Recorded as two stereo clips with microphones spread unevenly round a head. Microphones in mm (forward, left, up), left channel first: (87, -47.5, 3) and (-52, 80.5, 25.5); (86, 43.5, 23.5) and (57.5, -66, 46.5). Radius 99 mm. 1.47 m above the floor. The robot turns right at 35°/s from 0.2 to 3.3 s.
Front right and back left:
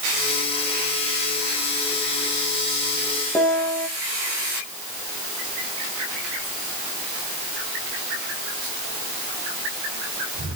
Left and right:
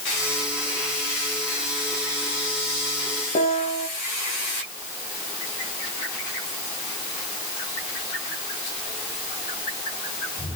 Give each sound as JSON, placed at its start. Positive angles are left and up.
{"t": 3.4, "sound": "a piano", "azimuth_deg": 40, "distance_m": 2.5}